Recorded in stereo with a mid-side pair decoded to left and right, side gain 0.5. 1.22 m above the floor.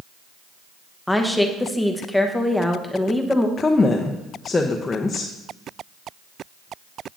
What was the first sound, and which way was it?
A woman speaking, 5° left.